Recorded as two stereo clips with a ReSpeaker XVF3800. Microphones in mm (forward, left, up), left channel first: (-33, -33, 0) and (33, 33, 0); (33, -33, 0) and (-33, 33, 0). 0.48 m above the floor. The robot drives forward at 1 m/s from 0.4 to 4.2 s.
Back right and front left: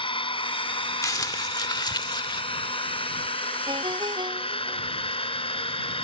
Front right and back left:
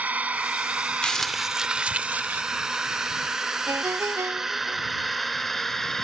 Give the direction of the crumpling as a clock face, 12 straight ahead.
4 o'clock.